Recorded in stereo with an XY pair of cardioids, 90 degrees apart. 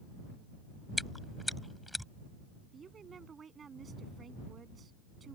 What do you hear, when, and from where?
1.0 s chewing: 5° left
2.7 s a woman speaking: 45° right